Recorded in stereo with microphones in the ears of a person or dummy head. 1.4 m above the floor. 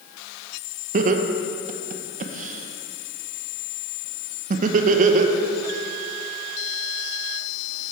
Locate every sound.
0.9 s laughter: 45° right (ahead or behind), 0.9 m